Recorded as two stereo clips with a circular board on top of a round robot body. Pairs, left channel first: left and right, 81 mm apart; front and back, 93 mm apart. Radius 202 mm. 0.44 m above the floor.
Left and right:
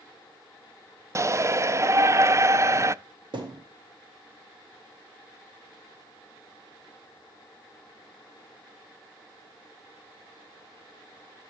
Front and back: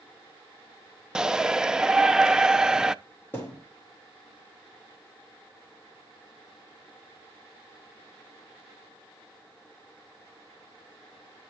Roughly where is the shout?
Right.